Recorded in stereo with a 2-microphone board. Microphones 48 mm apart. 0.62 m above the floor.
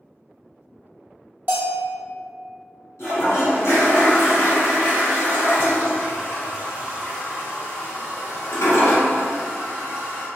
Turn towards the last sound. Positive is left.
turn(degrees=75)  # may be behind; listen again after turning